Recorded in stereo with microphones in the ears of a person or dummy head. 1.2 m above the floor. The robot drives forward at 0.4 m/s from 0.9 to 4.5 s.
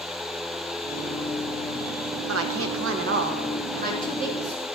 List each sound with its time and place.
2.3 s a woman speaking: 65° right (ahead or behind), 0.9 m; by 4.7 s 45° right (ahead or behind), 1.2 m